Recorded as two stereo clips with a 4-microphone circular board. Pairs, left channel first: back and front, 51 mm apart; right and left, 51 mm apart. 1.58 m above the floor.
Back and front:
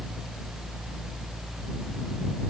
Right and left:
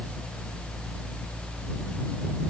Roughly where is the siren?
No siren in this recording.